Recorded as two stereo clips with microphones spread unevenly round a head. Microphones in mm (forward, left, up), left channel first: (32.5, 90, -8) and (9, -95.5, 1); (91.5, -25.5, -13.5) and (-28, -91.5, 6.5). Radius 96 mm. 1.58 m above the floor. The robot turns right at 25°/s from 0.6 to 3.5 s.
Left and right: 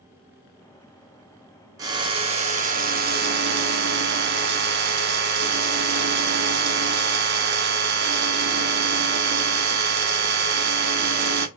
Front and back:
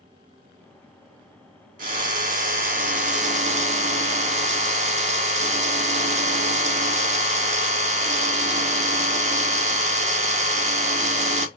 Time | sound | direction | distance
1.8 | a drill | 170° right | 1.0 m